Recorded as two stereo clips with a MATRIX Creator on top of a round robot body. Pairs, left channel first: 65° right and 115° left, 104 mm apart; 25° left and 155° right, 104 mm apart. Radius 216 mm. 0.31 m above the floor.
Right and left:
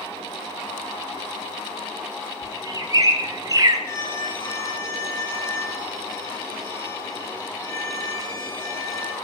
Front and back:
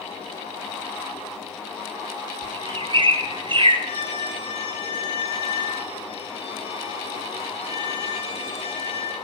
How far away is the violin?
About 8.5 m.